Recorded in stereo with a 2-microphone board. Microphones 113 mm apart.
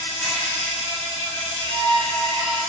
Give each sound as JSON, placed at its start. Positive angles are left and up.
{"t": 0.0, "sound": "an insect", "side_deg": -70, "distance_m": 1.1}
{"t": 1.6, "sound": "a violin", "side_deg": 50, "distance_m": 0.8}